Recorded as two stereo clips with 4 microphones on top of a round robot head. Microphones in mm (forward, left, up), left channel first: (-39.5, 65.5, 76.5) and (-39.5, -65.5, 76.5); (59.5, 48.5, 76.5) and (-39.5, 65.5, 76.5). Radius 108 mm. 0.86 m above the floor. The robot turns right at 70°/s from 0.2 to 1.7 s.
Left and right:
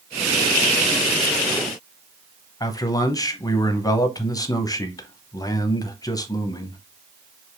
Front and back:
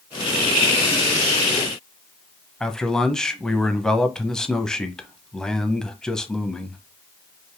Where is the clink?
No clink in this recording.